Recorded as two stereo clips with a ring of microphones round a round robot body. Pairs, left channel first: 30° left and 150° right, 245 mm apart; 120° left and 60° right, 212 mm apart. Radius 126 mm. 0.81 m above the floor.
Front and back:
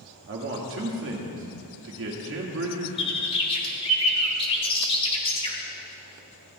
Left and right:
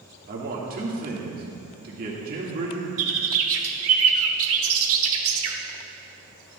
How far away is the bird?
About 1.4 m.